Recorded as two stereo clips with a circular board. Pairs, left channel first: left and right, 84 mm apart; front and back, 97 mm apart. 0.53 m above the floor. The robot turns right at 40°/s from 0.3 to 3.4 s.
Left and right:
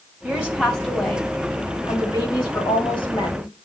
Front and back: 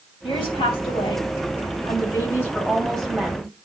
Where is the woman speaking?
20° right, 3 m; by 3.5 s 105° left, 3 m.